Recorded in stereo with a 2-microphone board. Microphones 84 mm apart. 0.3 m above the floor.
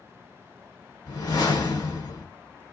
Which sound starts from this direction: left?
A whoosh, at 1.1 s.